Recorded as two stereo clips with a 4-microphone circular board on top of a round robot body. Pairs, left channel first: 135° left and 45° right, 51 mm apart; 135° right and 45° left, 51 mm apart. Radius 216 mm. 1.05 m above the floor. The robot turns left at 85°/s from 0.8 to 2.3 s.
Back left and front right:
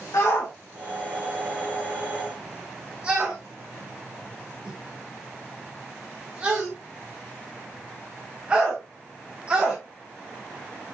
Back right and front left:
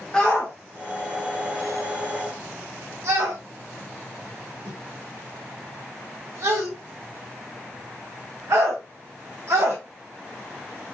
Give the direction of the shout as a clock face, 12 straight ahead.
7 o'clock.